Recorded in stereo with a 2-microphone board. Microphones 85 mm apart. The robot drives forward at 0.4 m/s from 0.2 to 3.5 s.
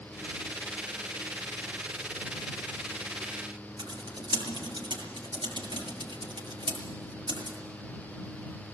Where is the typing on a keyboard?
65° right (ahead or behind), 6.5 m.